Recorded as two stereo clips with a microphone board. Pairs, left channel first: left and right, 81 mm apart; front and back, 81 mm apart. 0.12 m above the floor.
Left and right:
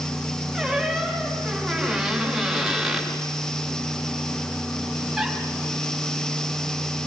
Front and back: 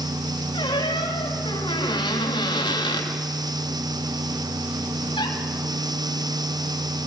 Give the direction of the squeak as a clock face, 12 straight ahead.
12 o'clock.